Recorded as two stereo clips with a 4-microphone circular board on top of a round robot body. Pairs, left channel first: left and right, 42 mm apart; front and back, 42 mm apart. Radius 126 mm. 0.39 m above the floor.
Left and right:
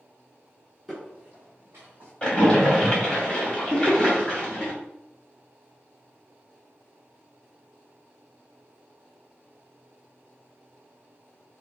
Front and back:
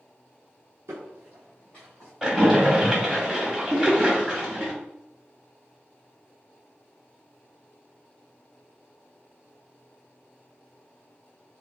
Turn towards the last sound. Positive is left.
turn(degrees=115)